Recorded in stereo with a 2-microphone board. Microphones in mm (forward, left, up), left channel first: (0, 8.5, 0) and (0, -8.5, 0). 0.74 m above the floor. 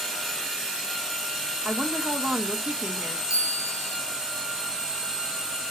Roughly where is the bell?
Right.